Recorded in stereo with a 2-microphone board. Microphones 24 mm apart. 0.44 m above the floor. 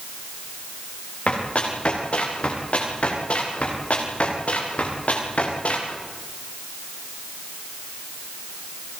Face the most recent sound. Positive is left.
turn(degrees=75)  # may be behind; listen again after turning